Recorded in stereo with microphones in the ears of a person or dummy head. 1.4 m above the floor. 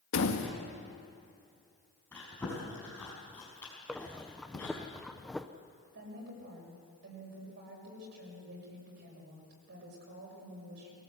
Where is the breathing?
5° left (ahead or behind), 0.7 m.